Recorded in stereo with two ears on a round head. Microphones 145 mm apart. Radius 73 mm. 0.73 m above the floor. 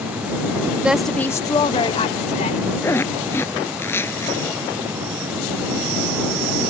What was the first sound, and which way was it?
A woman speaking, 10° right (ahead or behind).